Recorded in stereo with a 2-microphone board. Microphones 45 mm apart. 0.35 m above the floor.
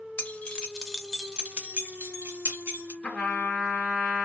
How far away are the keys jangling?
About 0.7 m.